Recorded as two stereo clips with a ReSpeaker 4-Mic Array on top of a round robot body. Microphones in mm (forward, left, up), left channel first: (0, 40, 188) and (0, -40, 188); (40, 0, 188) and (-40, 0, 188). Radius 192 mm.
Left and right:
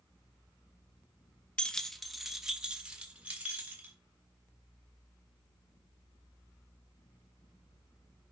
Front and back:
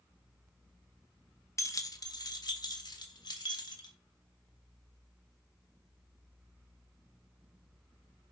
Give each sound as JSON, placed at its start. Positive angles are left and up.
{"t": 1.6, "sound": "keys jangling", "azimuth_deg": 20, "distance_m": 1.0}